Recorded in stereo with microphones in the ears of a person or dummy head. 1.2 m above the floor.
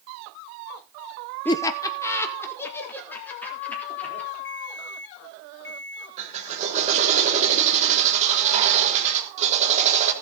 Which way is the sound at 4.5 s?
15° left (ahead or behind).